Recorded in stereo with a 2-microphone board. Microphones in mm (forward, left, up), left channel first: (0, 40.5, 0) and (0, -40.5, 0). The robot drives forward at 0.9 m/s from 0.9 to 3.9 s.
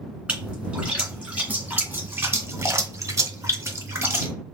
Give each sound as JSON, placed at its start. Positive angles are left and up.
{"t": 0.3, "sound": "a splash", "side_deg": -15, "distance_m": 2.0}